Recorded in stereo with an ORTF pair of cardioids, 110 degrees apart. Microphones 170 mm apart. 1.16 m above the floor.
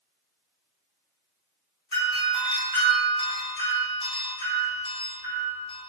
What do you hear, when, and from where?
1.9 s a doorbell: 30° left, 1.2 m